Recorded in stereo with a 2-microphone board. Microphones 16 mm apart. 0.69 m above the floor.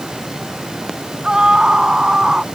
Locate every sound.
1.2 s a scream: 55° right (ahead or behind); by 2.5 s 45° right (ahead or behind)